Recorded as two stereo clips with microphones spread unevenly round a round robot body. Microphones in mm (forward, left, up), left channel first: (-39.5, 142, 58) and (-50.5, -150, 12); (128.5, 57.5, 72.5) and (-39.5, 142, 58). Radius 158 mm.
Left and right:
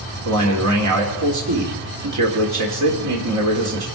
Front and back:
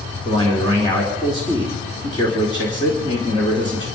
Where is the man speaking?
100° right, 2.5 m.